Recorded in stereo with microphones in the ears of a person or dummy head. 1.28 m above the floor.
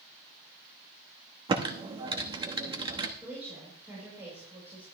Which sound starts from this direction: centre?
A woman speaking, at 3.2 s.